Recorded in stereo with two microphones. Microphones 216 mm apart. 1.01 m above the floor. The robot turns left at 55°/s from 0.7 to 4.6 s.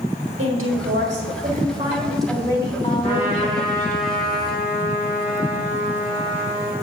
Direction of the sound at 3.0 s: 85° right.